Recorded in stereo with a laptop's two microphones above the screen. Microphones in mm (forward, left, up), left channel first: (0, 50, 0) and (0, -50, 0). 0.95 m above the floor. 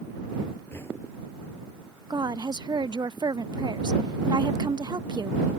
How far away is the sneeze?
I don't hear a sneeze.